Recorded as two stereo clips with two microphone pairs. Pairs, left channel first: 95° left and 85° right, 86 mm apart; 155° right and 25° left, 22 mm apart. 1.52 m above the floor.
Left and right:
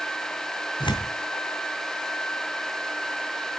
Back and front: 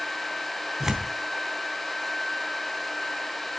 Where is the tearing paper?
90° left, 3 m.